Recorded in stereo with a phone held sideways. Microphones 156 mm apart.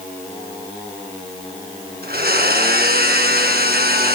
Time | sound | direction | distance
2.0 | a blender | 85° right | 6 m